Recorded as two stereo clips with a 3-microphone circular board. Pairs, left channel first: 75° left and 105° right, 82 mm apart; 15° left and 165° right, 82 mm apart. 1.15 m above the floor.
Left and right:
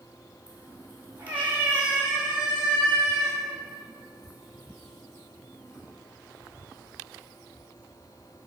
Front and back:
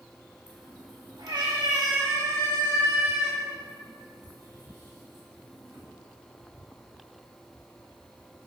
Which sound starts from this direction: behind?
A cat meowing, at 0.5 s.